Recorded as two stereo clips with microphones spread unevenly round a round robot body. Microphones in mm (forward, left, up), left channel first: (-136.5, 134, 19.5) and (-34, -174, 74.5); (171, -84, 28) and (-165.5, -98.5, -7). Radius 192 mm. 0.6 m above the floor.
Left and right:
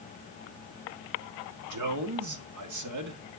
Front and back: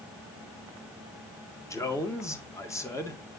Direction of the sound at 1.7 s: 80° right.